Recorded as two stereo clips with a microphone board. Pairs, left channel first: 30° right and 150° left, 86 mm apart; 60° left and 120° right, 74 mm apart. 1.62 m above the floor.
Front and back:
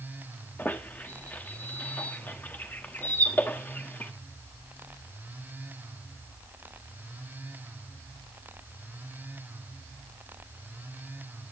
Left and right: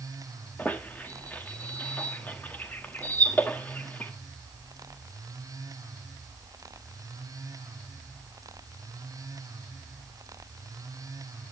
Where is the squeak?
20° left, 1.2 m.